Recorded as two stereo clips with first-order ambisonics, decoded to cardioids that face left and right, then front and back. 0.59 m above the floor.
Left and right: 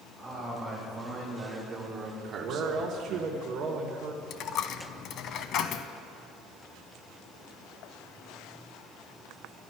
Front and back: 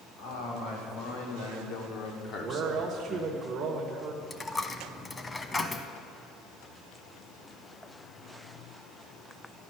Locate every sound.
0.2 s a man speaking: 5° right, 4.5 m; by 3.4 s 130° right, 1.7 m
2.4 s a man speaking: 120° right, 1.2 m
4.3 s a dropped coin: 70° left, 0.5 m